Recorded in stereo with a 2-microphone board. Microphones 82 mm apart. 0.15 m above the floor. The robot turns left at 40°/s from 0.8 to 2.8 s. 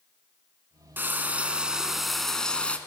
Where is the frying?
135° right, 0.8 m; by 2.8 s 155° left, 0.8 m.